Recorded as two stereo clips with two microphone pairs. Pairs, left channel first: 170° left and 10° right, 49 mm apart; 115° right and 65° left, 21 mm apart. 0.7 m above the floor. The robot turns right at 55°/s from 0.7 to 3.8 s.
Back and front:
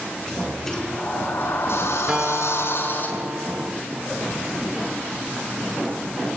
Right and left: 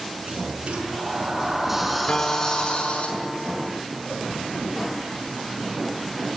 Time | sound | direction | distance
0.3 | a sliding door | 90° left | 6 m
2.1 | a guitar | 85° right | 2.0 m